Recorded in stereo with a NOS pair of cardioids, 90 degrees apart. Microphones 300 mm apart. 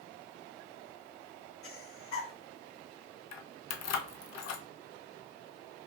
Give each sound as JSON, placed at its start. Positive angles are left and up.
{"t": 1.6, "sound": "breathing", "azimuth_deg": 55, "distance_m": 0.8}
{"t": 3.3, "sound": "keys jangling", "azimuth_deg": 60, "distance_m": 0.6}